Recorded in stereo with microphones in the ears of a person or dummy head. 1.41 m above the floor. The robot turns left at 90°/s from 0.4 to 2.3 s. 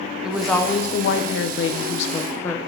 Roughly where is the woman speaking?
Behind.